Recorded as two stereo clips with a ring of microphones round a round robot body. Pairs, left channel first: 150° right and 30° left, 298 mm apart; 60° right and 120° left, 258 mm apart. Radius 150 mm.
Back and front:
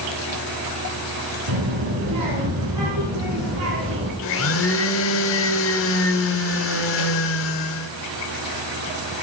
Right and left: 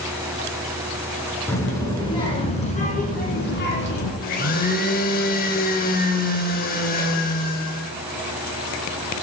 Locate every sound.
1.5 s a child speaking: 20° left, 4 m; by 4.1 s 20° right, 3.5 m
4.2 s a blender: 115° right, 0.7 m